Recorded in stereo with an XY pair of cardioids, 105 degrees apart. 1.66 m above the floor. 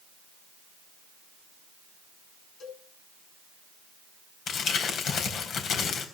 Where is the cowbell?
55° left, 7.5 m.